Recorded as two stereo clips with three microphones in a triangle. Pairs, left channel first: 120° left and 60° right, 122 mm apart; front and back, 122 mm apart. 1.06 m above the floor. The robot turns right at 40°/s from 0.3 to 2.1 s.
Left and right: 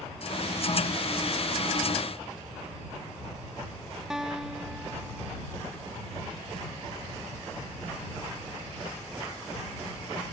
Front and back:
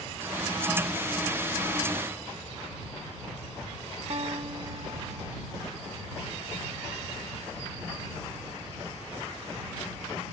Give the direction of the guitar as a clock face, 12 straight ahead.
5 o'clock.